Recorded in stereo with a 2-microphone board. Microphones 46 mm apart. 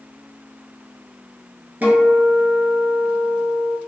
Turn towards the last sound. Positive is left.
turn(degrees=-45)  # may be behind; listen again after turning